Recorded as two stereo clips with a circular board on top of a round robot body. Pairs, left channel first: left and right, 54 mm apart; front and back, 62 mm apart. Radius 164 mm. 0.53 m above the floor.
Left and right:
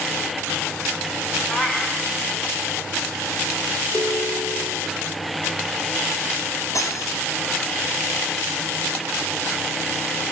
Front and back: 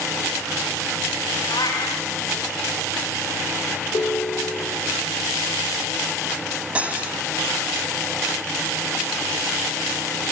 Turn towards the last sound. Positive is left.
turn(degrees=110)